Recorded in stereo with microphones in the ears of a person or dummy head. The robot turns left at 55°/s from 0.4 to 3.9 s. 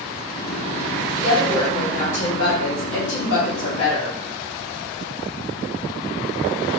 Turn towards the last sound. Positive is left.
turn(degrees=55)